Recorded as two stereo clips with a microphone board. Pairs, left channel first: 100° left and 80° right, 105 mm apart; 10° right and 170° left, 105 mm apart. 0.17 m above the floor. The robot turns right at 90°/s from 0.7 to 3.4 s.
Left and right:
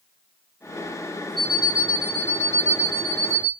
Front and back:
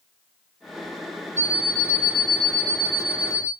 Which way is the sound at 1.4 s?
130° right.